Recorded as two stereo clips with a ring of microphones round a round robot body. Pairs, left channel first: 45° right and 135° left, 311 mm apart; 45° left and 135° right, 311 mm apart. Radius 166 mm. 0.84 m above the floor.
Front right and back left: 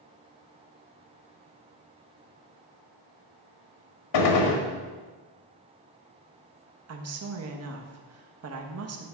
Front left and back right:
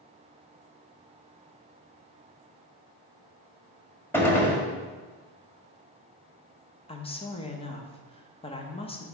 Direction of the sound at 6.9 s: 115° left.